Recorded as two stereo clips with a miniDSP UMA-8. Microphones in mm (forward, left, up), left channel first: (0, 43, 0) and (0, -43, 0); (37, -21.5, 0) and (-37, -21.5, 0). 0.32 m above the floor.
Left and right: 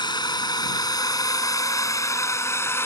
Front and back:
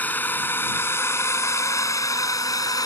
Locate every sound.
0.0 s a drone: 65° left; by 2.9 s 30° left